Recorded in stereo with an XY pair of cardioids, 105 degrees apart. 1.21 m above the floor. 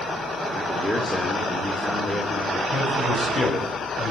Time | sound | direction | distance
0.5 | a man speaking | 5° left | 3 m
2.7 | a man speaking | 30° left | 8.5 m